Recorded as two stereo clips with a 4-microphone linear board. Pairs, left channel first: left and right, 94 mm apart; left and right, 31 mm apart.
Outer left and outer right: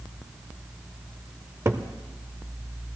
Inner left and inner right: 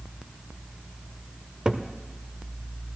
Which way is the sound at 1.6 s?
30° right (ahead or behind).